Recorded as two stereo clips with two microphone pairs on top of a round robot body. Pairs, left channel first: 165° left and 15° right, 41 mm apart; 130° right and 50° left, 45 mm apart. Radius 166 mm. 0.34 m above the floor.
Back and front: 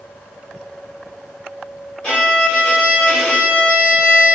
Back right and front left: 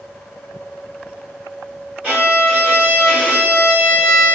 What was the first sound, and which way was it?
A violin, 115° left.